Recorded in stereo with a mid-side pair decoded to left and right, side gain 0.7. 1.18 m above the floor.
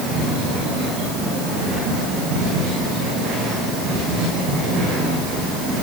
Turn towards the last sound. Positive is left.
No sound to turn to.